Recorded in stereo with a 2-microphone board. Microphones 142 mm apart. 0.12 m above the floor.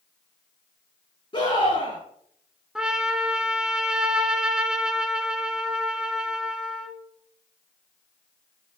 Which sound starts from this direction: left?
A scream, at 1.3 s.